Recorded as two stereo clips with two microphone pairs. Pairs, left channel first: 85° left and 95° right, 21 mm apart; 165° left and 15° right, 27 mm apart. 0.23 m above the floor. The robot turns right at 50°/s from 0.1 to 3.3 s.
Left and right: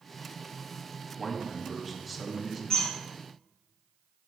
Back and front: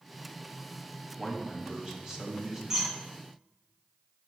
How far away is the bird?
About 1.5 m.